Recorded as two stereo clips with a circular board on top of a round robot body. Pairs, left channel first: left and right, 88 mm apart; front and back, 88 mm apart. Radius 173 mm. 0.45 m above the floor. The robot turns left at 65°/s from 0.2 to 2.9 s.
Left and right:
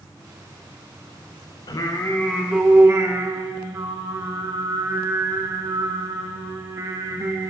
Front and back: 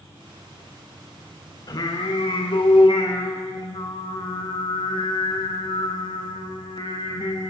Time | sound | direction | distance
1.7 | singing | 50° left | 0.6 m